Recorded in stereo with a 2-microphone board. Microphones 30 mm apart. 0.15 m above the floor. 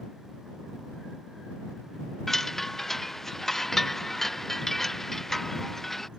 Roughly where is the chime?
Centre.